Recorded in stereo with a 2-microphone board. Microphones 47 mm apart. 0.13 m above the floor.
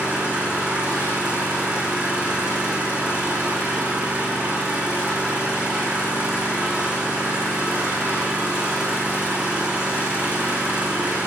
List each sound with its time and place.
0.0 s an engine running: 25° right (ahead or behind), 7 m